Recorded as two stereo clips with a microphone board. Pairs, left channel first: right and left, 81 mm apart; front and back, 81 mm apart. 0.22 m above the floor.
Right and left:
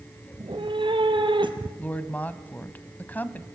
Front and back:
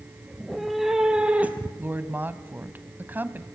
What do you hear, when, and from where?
0.3 s a cat meowing: 85° left, 2.5 m; by 1.7 s 110° left, 2 m
1.8 s a woman speaking: 140° right, 1.2 m